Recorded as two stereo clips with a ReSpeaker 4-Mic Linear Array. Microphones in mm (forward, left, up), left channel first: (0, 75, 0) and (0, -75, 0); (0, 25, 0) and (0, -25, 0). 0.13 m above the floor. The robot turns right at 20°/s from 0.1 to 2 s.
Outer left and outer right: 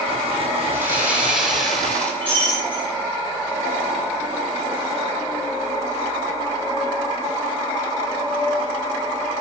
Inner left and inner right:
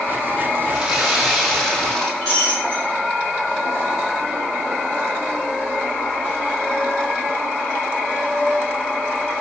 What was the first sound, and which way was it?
Sawing, 20° right (ahead or behind).